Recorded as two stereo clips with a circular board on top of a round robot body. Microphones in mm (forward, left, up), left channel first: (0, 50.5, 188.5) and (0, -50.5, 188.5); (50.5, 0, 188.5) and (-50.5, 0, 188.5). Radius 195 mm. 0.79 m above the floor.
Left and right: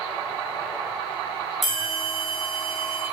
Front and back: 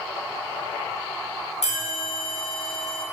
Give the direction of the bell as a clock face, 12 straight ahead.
12 o'clock.